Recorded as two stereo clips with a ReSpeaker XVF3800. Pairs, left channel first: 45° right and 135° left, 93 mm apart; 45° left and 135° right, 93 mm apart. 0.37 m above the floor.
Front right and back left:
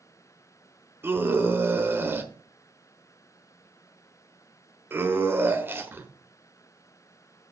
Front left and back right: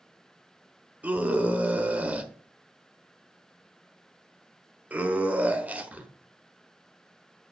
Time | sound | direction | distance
1.0 | a scream | 170° left | 1.1 m